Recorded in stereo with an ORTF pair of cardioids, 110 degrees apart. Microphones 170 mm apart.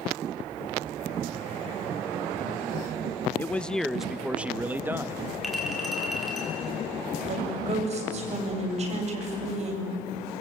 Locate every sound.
3.4 s a man speaking: 10° left, 0.8 m; by 5.2 s 15° right, 1.6 m
5.4 s a clink: straight ahead, 7.5 m
7.3 s a woman speaking: 40° right, 7.5 m